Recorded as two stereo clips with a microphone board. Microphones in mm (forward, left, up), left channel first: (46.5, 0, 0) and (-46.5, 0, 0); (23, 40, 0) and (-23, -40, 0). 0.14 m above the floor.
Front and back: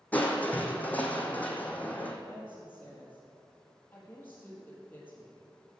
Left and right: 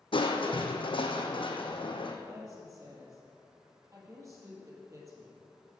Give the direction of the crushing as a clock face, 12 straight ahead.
10 o'clock.